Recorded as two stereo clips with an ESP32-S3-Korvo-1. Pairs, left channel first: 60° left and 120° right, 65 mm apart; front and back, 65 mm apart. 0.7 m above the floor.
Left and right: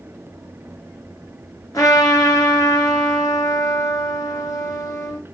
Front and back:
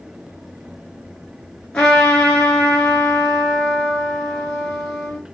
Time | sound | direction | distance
1.7 | a trumpet | 75° left | 1.6 m